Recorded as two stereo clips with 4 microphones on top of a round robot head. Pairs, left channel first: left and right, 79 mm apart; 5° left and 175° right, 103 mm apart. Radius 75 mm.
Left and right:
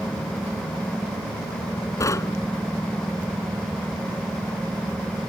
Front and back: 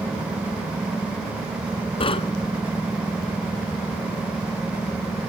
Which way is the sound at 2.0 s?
40° left.